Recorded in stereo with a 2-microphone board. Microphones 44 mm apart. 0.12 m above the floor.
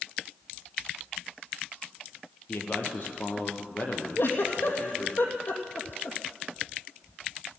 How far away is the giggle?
About 2.5 m.